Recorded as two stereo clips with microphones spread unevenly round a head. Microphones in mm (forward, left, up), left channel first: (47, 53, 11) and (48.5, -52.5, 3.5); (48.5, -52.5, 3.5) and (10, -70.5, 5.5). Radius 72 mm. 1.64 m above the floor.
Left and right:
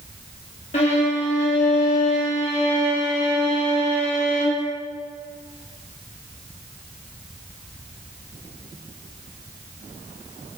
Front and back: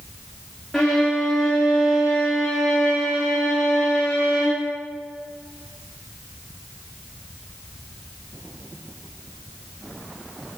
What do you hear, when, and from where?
0.7 s a violin: 115° left, 1.8 m